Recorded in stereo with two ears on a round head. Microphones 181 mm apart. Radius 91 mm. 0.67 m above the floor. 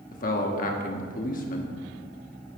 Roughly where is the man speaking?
Left.